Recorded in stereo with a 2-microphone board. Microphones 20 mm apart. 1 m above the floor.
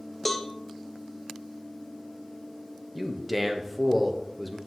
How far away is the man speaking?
About 0.9 m.